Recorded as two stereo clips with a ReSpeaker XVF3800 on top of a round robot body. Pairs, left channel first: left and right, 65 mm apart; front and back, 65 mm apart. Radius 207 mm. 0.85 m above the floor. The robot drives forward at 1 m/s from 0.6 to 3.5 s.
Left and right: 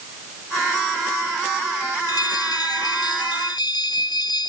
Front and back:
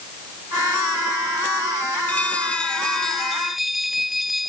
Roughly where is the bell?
Left.